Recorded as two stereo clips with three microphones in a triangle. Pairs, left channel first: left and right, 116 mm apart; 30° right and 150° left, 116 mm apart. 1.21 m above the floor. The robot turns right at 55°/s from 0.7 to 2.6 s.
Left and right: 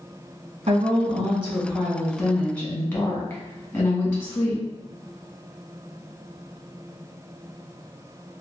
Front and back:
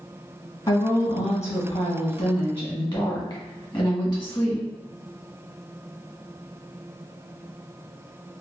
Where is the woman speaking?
85° right, 1.6 m; by 4.6 s 20° left, 1.6 m.